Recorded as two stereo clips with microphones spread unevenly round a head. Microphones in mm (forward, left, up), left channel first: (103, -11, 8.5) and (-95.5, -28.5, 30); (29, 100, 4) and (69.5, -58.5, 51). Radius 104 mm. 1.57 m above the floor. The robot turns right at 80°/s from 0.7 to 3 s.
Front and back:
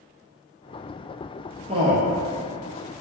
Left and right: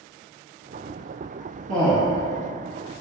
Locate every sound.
1.7 s a man speaking: 115° right, 0.6 m; by 2.2 s 70° right, 0.6 m